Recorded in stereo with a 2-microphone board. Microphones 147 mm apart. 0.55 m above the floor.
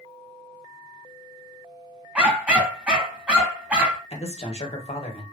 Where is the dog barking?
10° right (ahead or behind), 0.9 m.